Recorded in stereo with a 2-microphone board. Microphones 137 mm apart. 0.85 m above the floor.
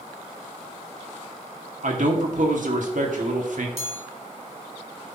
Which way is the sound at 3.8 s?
50° right (ahead or behind).